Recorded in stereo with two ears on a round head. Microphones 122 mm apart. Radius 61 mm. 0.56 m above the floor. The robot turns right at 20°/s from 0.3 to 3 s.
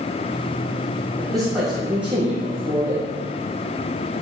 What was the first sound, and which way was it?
A man speaking, 175° left.